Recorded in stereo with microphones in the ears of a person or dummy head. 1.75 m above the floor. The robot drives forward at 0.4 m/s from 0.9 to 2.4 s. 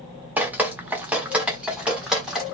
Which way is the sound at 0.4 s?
10° right (ahead or behind).